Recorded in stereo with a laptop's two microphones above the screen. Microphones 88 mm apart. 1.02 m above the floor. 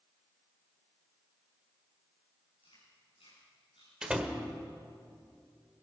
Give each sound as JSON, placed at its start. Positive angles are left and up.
{"t": 2.6, "sound": "chewing", "side_deg": 85, "distance_m": 8.5}
{"t": 4.0, "sound": "a door slam", "side_deg": -10, "distance_m": 2.0}